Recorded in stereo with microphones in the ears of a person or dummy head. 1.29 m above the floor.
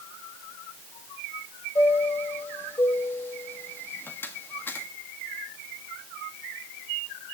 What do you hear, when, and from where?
1.8 s a chime: 10° left (ahead or behind), 1.6 m